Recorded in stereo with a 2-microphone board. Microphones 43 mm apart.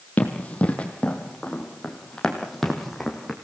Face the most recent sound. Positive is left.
turn(degrees=0)  # may be behind; listen again after turning